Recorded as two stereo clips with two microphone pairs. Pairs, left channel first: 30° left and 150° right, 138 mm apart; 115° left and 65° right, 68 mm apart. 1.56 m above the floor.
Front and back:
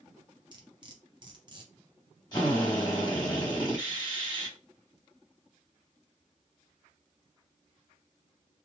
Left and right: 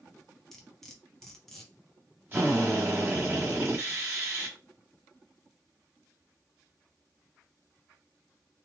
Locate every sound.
0.5 s cutlery clinking: 160° right, 0.7 m
2.3 s a drill: 15° right, 1.4 m